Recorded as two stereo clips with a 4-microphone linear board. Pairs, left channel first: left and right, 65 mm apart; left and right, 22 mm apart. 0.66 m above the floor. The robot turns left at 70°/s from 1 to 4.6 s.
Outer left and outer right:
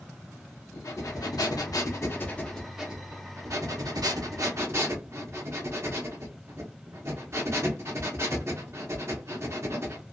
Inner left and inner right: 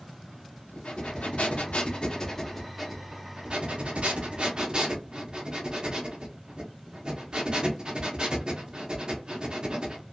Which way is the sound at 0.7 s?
120° left.